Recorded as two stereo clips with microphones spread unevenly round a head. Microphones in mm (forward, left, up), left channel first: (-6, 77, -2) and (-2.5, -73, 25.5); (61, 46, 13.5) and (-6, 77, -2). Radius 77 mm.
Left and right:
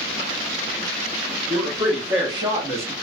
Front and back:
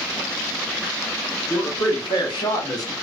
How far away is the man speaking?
About 1.5 m.